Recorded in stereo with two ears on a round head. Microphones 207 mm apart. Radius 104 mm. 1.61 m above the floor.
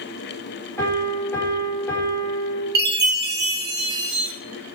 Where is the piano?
10° left (ahead or behind), 5 m.